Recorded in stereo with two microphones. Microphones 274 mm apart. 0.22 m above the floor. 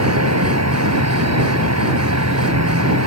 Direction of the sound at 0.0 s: 70° right (ahead or behind).